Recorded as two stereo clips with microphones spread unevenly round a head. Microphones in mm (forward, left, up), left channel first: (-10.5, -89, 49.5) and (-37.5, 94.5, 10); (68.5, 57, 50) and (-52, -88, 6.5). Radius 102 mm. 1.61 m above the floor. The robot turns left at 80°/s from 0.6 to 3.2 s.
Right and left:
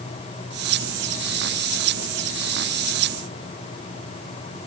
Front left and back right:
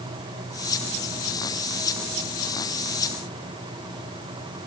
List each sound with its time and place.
Only background noise.